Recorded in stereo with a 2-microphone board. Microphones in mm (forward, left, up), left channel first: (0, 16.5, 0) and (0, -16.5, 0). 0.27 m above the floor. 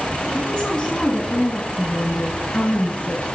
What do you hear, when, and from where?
0.3 s a woman speaking: 35° left (ahead or behind), 2.5 m
1.8 s a woman speaking: 40° left (ahead or behind), 4 m